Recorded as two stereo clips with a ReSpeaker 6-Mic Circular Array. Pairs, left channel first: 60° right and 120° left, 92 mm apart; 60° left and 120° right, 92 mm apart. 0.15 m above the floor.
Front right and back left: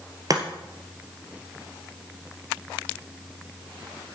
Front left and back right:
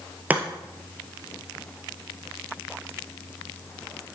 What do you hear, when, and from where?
0.3 s chopping: 165° left, 1.6 m